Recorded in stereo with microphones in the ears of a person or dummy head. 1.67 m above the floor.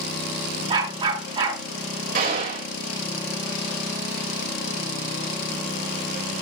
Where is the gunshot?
50° right (ahead or behind), 4.5 m.